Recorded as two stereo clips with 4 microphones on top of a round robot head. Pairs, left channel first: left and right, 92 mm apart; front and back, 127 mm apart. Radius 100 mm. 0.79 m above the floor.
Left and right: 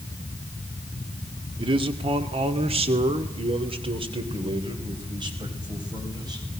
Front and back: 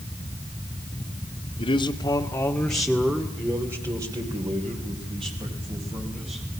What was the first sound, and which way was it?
A man speaking, 50° right.